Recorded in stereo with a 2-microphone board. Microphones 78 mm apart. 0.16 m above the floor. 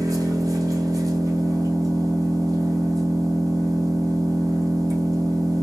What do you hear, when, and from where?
0.0 s an engine running: 45° right (ahead or behind), 1.8 m